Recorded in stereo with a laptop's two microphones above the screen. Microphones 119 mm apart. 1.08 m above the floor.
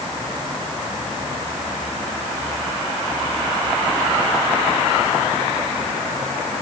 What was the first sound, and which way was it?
Only background noise.